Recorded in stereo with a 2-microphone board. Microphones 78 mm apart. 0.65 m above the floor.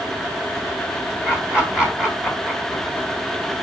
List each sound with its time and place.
1.2 s laughter: 10° right (ahead or behind), 1.2 m